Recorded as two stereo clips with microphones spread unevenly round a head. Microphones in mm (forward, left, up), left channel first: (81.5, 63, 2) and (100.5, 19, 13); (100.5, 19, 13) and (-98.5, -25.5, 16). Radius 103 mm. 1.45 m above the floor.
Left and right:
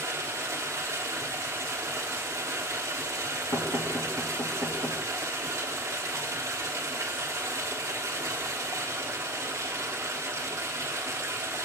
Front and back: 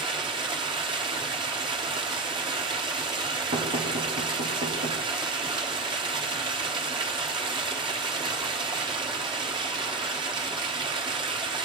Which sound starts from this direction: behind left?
Knocking, at 3.5 s.